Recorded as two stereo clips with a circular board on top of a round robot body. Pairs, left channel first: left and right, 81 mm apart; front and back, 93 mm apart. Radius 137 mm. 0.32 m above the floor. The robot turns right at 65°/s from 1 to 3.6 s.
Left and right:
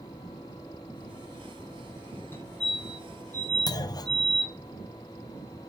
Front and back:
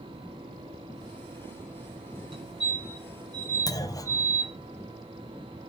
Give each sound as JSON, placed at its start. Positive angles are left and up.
{"t": 2.3, "sound": "a fire alarm", "azimuth_deg": 155, "distance_m": 5.0}
{"t": 3.7, "sound": "a clunk", "azimuth_deg": 50, "distance_m": 1.4}